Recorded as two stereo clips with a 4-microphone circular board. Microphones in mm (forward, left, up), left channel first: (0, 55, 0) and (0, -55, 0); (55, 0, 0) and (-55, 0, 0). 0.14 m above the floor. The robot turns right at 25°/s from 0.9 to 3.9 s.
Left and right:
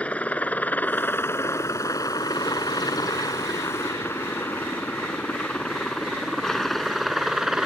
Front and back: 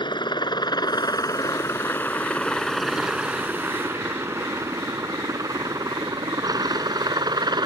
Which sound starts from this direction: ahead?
A helicopter, at 0.0 s.